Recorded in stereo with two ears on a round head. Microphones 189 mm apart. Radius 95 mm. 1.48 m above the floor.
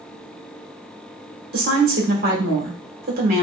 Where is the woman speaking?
45° right (ahead or behind), 1.6 m.